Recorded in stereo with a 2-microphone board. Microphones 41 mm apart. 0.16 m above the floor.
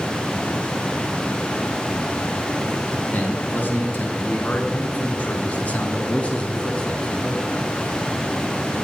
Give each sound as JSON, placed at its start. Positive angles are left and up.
{"t": 3.0, "sound": "a man speaking", "side_deg": 50, "distance_m": 2.5}